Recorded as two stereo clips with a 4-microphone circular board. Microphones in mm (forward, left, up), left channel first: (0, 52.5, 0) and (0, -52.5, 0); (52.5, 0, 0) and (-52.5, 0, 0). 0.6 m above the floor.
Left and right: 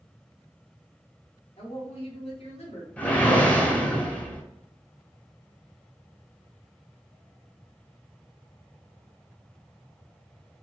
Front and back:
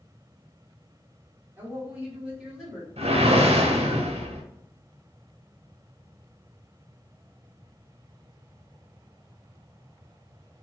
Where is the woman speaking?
110° left, 1.4 m; by 2.9 s 95° left, 2 m.